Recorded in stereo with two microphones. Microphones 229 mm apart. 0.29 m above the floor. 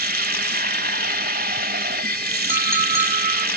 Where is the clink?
10° right (ahead or behind), 1.2 m.